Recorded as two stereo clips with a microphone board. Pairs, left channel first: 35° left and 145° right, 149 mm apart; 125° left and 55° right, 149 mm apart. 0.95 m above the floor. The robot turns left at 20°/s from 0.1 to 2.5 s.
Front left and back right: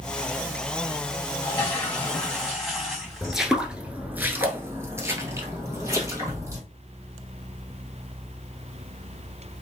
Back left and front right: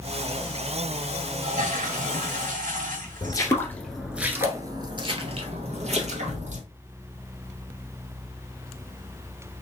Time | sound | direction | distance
1.4 | a toilet flushing | 35° right | 2 m
3.2 | footsteps | 125° left | 1.0 m